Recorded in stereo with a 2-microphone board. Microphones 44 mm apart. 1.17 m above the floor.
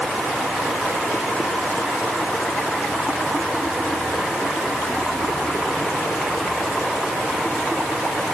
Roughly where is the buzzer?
No buzzer in this recording.